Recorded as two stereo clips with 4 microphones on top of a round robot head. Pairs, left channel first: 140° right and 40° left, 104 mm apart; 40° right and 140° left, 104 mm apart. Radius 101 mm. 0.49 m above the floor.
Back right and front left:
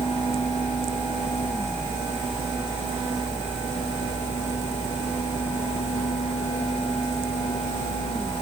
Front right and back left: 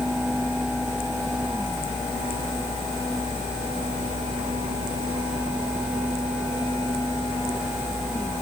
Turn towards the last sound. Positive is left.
No sound to turn to.